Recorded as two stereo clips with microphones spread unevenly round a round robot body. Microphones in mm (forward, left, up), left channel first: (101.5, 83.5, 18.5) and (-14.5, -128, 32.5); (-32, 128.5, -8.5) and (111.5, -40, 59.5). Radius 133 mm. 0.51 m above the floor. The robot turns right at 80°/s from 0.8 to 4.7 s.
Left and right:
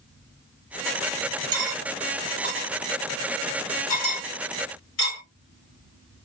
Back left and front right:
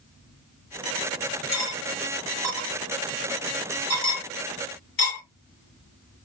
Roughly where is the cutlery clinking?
Behind right.